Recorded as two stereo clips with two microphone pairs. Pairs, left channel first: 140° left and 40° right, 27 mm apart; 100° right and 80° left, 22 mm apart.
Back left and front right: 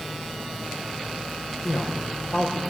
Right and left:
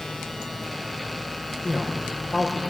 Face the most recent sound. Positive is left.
turn(degrees=155)